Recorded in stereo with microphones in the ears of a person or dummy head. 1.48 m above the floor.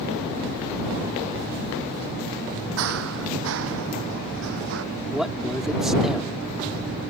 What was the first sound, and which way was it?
Running footsteps, 65° right (ahead or behind).